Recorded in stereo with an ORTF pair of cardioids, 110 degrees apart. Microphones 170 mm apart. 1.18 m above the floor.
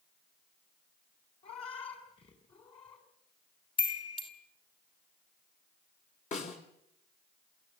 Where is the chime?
30° left, 3 m.